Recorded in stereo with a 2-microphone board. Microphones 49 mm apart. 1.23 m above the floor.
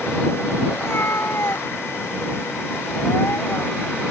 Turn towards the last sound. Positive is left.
turn(degrees=60)  # may be behind; listen again after turning